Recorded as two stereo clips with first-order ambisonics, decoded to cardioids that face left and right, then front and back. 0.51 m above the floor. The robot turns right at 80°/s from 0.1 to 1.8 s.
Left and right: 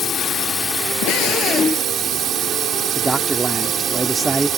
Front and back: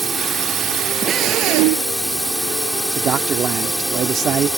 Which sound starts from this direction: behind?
A man speaking, at 3.0 s.